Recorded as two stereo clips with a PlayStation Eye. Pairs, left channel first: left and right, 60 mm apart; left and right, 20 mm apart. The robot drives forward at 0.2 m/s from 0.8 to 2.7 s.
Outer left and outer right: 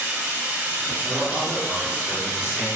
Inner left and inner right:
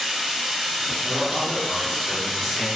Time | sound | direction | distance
0.0 | running water | 25° right (ahead or behind) | 0.9 m
1.0 | a man speaking | 20° right (ahead or behind) | 0.9 m